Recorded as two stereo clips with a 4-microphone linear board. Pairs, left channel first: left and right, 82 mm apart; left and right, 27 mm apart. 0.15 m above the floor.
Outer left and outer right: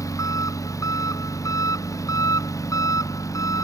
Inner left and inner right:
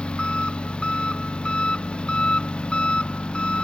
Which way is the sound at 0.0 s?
40° left (ahead or behind).